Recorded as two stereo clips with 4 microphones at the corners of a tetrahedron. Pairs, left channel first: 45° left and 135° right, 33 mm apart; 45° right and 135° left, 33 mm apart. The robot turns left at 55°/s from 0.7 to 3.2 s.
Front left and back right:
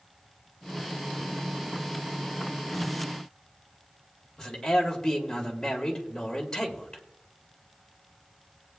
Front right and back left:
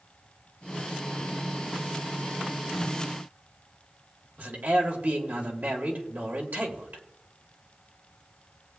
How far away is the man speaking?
About 2 m.